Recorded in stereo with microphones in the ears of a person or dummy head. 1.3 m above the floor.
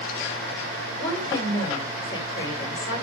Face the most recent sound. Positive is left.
turn(degrees=30)  # may be behind; listen again after turning